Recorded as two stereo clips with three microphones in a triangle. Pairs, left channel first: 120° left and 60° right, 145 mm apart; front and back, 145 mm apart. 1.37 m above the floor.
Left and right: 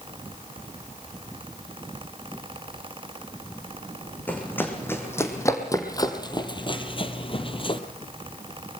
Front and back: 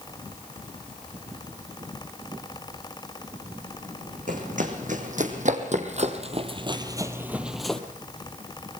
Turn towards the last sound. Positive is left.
turn(degrees=85)